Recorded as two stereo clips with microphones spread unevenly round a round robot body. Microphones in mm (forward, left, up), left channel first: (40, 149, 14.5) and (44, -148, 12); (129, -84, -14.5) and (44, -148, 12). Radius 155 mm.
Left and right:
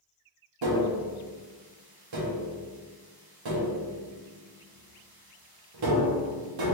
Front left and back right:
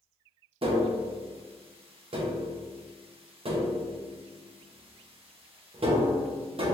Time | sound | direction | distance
0.6 | tapping | 100° right | 0.8 m